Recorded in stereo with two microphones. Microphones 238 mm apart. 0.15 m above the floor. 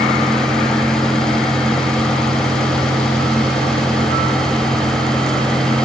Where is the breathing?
No breathing in this recording.